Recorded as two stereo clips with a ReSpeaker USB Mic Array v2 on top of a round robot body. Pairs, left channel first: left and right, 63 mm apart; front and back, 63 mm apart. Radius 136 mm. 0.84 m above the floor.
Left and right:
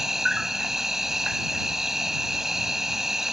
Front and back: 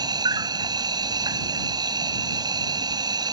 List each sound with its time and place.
0.0 s an insect: 175° right